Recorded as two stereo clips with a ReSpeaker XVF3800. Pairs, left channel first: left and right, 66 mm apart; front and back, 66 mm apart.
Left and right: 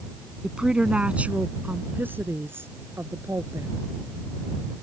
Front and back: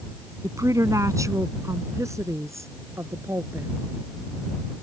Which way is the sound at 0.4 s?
170° right.